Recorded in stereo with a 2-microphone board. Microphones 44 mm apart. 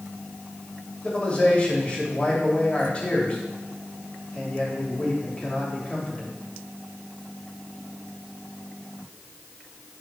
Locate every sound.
1.0 s a man speaking: 30° left (ahead or behind), 2.5 m